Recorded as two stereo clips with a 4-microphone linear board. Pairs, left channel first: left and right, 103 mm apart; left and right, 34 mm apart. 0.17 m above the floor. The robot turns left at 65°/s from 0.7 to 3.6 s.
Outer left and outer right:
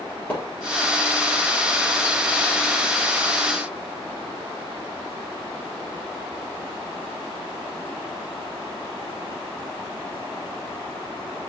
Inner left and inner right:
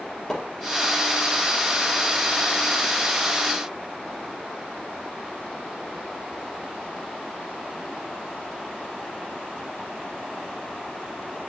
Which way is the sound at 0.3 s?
15° left (ahead or behind).